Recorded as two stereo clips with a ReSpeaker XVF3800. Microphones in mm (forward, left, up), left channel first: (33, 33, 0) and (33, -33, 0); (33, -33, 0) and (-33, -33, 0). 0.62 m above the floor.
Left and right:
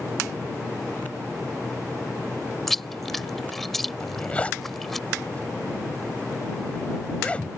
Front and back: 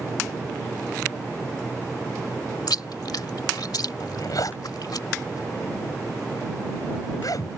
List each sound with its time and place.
2.7 s chewing: 5° left
4.0 s a zipper: 20° left